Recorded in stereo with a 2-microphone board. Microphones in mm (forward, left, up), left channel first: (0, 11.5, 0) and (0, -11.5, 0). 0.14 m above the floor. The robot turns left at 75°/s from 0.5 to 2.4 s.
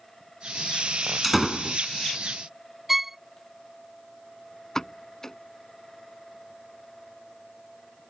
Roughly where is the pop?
Left.